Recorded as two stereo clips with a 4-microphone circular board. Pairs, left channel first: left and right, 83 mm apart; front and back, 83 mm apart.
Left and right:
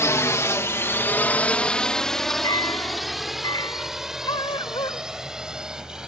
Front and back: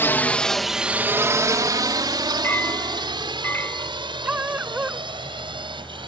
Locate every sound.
0.0 s a drone: 50° left; by 6.1 s 170° right
2.4 s a clink: 65° left
4.2 s a dog barking: 105° left